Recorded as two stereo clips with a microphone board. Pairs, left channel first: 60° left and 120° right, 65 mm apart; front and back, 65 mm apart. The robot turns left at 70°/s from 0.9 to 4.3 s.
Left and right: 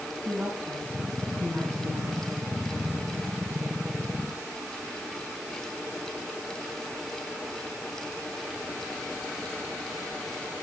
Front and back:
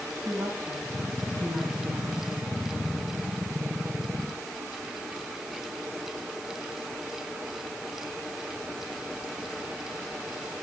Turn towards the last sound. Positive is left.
turn(degrees=-55)